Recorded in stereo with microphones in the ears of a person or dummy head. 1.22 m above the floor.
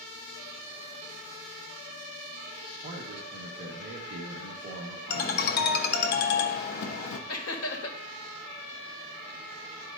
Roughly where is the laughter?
Left.